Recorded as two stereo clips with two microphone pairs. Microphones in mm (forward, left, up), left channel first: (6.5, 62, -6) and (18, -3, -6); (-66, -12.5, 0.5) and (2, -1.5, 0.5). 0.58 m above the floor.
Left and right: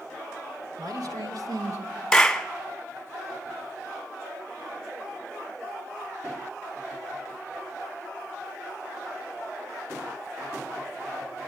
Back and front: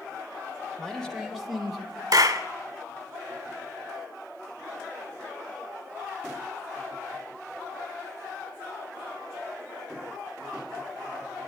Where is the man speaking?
90° right, 2.5 m; by 2.0 s 75° right, 1.8 m.